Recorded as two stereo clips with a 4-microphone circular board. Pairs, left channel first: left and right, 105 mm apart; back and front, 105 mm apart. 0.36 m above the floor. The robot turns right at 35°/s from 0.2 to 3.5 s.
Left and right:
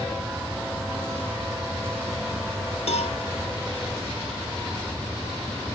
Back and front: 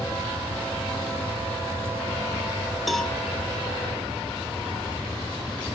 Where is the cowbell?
90° left, 0.7 m; by 3.1 s 100° left, 0.7 m.